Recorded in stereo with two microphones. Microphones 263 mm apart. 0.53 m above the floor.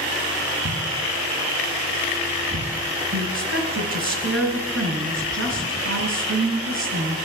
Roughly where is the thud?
Right.